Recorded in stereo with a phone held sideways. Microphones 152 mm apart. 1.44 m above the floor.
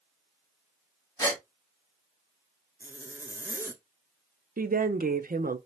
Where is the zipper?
15° right (ahead or behind), 0.7 m.